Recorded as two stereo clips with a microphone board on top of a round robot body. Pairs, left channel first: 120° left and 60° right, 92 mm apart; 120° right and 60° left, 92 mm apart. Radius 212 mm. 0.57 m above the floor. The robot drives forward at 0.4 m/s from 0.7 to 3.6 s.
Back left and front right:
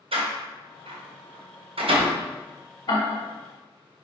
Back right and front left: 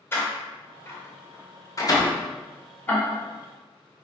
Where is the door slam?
55° right, 1.8 m; by 2.2 s 75° right, 1.5 m.